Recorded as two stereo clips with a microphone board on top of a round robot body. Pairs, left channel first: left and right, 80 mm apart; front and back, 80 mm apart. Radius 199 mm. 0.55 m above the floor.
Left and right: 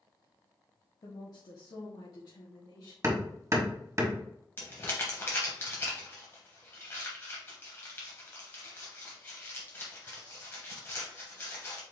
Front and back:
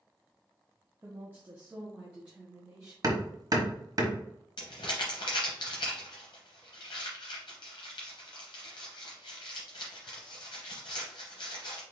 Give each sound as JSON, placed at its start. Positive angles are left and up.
{"t": 1.0, "sound": "a woman speaking", "azimuth_deg": 125, "distance_m": 1.1}
{"t": 3.0, "sound": "hammering", "azimuth_deg": -145, "distance_m": 1.4}
{"t": 4.6, "sound": "crumpling", "azimuth_deg": 25, "distance_m": 0.7}